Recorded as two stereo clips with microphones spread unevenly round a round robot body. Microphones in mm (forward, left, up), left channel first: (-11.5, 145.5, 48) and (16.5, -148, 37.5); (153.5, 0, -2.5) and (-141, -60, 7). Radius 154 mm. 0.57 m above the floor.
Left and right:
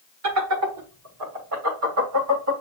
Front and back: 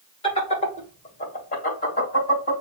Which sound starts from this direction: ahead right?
Laughter, at 0.2 s.